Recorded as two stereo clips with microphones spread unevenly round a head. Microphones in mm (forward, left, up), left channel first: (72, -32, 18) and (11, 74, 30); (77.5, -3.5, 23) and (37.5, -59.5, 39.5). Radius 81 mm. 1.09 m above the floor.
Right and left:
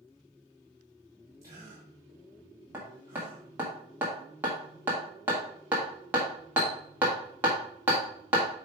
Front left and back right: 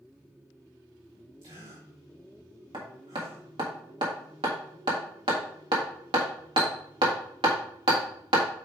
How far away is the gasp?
About 2.5 m.